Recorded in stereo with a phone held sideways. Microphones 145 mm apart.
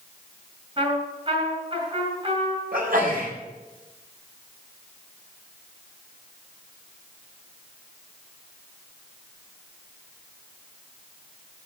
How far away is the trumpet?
About 4.5 m.